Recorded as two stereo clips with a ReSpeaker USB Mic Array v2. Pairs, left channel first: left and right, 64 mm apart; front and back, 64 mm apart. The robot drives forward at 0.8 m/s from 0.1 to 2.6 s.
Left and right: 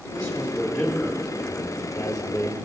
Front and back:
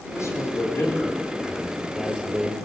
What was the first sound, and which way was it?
A man speaking, 5° left.